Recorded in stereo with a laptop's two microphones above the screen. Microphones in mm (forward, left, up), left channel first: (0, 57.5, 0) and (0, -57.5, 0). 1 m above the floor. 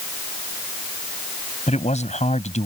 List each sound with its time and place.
1.7 s a man speaking: 80° left